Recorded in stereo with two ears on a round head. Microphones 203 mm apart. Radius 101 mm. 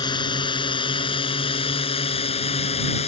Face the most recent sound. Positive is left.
turn(degrees=30)  # may be behind; listen again after turning